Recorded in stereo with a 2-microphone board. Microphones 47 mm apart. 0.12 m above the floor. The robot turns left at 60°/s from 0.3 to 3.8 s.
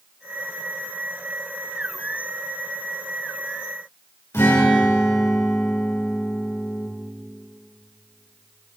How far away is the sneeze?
I don't hear a sneeze.